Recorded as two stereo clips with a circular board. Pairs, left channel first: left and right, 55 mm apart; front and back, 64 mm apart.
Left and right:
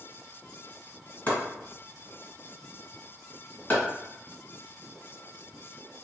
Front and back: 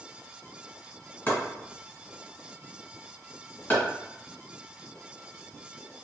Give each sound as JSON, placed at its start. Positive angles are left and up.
{"t": 1.3, "sound": "chopping", "azimuth_deg": 45, "distance_m": 1.8}